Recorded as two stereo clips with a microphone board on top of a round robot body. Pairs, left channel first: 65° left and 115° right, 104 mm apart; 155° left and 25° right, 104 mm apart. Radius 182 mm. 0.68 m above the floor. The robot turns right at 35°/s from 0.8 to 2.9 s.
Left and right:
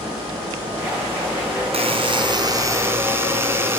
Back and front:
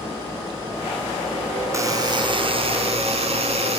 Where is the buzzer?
85° right, 4.5 m; by 3.8 s 45° right, 4.5 m.